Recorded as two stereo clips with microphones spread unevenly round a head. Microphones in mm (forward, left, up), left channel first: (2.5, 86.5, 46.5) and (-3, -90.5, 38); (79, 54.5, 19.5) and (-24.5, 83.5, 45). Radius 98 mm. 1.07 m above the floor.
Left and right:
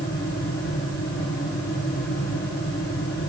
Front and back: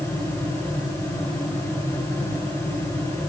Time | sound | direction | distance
0.0 | a fan | 50° left | 7.5 m